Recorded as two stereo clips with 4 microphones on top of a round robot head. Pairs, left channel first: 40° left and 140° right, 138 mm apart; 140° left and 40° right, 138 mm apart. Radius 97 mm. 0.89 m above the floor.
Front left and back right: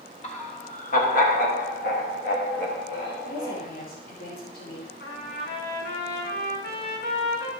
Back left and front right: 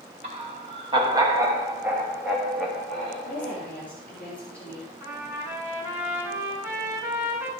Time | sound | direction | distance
0.2 | laughter | straight ahead | 3 m
3.2 | a woman speaking | 60° left | 3.5 m
5.0 | a trumpet | 35° left | 3 m